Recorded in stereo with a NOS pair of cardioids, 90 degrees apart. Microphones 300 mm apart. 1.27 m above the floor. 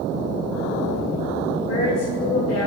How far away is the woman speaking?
About 2 m.